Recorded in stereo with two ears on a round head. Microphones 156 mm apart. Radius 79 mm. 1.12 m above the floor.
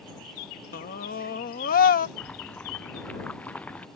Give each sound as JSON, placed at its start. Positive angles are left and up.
{"t": 0.7, "sound": "a scream", "side_deg": 55}
{"t": 2.2, "sound": "boiling", "side_deg": 10}